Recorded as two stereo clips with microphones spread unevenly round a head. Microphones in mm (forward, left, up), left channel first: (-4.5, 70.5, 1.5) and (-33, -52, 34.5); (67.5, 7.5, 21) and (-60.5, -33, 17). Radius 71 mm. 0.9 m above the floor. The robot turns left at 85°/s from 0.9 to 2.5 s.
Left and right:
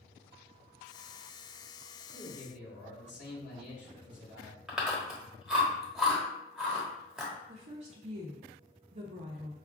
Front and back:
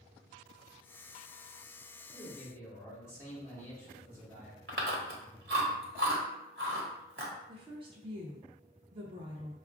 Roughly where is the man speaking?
Behind left.